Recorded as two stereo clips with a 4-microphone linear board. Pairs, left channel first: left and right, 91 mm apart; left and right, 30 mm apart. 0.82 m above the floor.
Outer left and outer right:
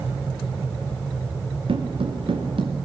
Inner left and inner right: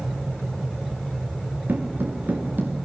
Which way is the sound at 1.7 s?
75° right (ahead or behind).